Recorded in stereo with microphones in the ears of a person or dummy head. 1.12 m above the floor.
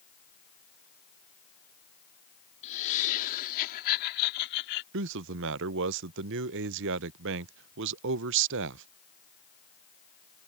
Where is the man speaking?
65° right (ahead or behind).